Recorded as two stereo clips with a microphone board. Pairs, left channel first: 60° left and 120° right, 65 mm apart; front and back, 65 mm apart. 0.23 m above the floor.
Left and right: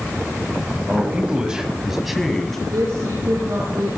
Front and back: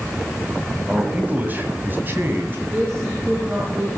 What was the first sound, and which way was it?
A man speaking, 140° right.